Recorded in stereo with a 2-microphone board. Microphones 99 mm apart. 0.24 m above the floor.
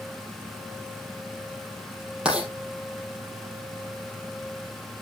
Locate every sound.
2.2 s writing: 10° right (ahead or behind), 4 m